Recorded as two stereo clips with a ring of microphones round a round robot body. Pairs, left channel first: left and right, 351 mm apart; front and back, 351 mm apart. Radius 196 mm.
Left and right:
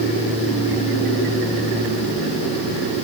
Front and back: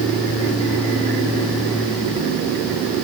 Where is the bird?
No bird in this recording.